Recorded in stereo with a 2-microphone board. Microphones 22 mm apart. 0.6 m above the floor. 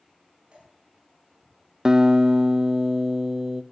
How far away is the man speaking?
I don't hear a man speaking.